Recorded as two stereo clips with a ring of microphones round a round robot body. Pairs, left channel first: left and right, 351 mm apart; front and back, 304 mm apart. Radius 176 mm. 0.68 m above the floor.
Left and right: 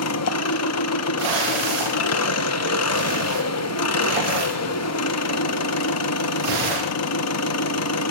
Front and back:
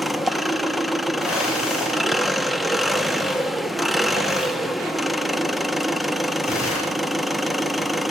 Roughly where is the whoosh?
Right.